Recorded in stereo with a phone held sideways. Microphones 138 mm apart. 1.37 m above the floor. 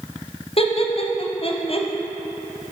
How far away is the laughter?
About 0.6 m.